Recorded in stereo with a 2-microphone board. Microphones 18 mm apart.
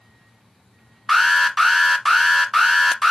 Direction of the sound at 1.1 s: 5° left (ahead or behind).